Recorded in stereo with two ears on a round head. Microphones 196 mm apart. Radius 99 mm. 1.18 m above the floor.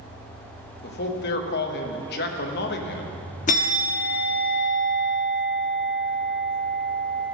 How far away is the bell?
About 1.2 m.